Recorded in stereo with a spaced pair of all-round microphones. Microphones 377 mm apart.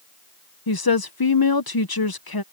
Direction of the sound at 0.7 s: 70° left (ahead or behind).